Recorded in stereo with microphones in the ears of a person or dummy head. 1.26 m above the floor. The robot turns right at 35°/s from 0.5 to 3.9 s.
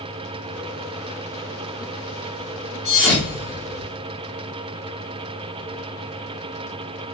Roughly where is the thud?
Centre.